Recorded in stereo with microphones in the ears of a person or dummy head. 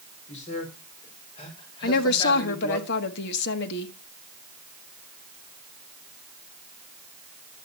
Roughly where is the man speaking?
Left.